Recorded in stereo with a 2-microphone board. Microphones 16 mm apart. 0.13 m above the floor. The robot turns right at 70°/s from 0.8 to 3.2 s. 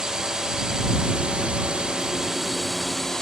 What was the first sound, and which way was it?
A drone, 140° right.